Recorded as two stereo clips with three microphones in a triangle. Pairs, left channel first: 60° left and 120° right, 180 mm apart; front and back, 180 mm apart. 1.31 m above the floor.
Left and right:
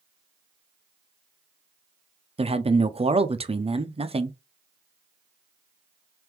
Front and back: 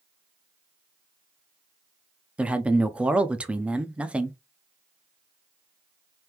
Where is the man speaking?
100° right, 0.5 m.